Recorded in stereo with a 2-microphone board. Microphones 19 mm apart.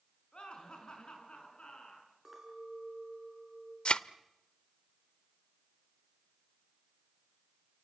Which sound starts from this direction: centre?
A clink, at 2.2 s.